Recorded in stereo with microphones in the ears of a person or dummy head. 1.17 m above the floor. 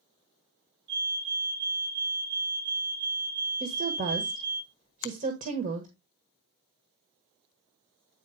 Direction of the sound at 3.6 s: 40° right (ahead or behind).